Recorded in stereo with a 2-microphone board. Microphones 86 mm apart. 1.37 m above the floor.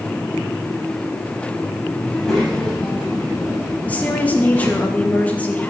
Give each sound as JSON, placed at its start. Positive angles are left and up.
{"t": 2.1, "sound": "a child speaking", "side_deg": 0, "distance_m": 7.0}
{"t": 3.9, "sound": "a woman speaking", "side_deg": 15, "distance_m": 2.5}